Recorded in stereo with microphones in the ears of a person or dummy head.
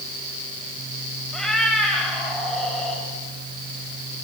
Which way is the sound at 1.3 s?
Centre (ahead or behind).